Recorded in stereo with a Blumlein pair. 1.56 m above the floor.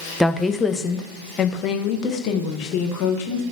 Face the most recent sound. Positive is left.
turn(degrees=40)